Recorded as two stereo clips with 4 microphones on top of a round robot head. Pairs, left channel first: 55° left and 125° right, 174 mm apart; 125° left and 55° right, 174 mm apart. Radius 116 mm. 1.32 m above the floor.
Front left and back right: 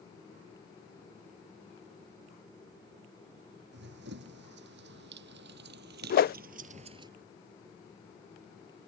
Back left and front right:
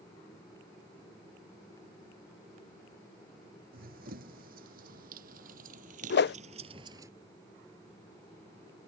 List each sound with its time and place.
3.7 s running footsteps: 95° right; by 7.1 s 105° right
6.1 s a whoosh: 95° left